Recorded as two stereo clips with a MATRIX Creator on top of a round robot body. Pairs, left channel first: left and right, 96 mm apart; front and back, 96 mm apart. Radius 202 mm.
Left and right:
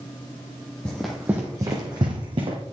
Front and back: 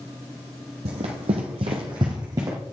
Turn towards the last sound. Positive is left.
turn(degrees=-125)